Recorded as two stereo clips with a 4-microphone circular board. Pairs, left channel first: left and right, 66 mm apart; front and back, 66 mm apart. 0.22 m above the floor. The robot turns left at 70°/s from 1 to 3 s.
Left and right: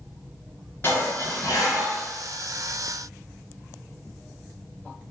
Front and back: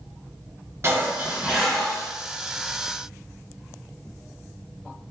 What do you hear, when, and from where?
0.8 s dishes clattering: 140° left, 1.6 m; by 2.1 s 65° left, 1.6 m